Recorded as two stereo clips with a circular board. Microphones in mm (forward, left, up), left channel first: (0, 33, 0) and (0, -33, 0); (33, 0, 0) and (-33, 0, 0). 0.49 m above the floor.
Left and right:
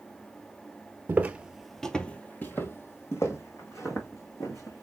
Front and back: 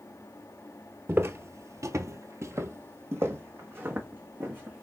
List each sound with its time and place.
1.1 s footsteps: 135° right, 0.7 m; by 4.8 s 125° left, 2.5 m